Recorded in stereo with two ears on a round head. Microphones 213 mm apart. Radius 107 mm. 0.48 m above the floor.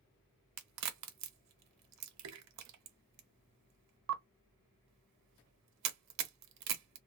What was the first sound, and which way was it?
A crack, 70° right (ahead or behind).